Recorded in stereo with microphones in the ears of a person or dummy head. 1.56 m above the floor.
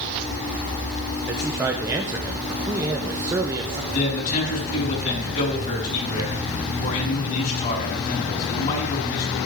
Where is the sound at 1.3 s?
10° right (ahead or behind), 0.5 m.